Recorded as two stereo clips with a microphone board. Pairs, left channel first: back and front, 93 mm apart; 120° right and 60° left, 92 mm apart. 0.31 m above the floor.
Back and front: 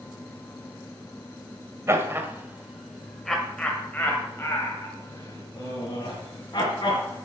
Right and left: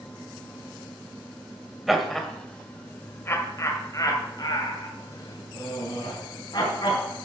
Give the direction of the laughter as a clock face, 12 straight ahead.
1 o'clock.